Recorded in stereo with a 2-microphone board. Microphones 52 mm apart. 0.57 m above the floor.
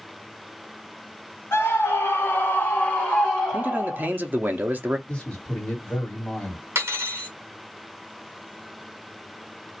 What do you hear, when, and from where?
1.5 s a scream: 55° left (ahead or behind), 1.8 m; by 4.1 s 10° right (ahead or behind), 1.5 m
3.5 s a man speaking: 35° right (ahead or behind), 0.7 m
5.1 s a man speaking: 25° left (ahead or behind), 1.6 m
6.8 s cutlery clinking: 60° right (ahead or behind), 1.1 m